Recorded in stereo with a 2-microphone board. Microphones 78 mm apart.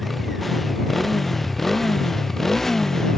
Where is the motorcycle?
Centre (ahead or behind); by 3.2 s 5° left (ahead or behind).